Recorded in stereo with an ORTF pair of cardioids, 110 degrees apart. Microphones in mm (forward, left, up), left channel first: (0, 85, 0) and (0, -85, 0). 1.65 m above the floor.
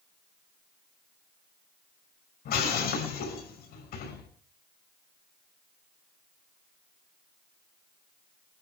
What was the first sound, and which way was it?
Breaking glass, 70° left.